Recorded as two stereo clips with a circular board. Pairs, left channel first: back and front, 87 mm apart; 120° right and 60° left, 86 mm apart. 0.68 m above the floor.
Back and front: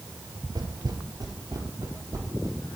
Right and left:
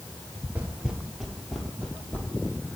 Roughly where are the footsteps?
Ahead.